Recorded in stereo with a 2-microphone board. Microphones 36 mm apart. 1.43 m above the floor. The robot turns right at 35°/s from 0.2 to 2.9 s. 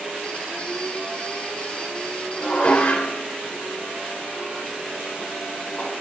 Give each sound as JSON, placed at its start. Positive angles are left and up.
{"t": 2.4, "sound": "dishes clattering", "side_deg": 35, "distance_m": 3.5}